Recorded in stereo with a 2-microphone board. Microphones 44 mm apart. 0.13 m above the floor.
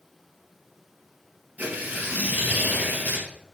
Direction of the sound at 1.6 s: 40° right (ahead or behind).